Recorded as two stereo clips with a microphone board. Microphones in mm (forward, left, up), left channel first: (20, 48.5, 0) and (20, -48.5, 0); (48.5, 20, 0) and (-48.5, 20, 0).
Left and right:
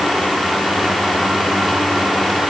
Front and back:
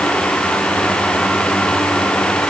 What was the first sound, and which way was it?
Only background noise.